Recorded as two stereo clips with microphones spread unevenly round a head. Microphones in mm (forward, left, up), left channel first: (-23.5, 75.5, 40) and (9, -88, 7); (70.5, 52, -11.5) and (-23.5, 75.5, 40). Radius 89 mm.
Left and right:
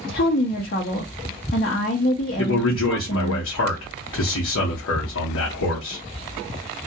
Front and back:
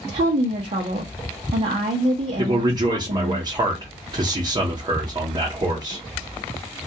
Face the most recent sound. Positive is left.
turn(degrees=110)